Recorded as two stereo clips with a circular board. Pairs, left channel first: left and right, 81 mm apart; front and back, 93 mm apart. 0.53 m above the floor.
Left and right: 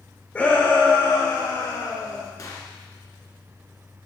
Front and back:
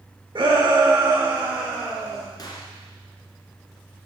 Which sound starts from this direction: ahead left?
A gunshot, at 2.4 s.